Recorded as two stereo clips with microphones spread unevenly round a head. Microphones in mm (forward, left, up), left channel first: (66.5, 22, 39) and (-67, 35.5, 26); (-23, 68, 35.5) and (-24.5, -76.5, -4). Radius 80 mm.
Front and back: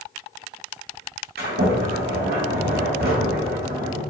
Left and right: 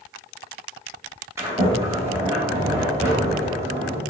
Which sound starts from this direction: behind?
A sliding door, at 1.4 s.